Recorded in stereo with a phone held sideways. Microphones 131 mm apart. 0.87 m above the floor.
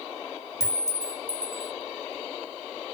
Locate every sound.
0.6 s a clink: 25° left (ahead or behind), 0.9 m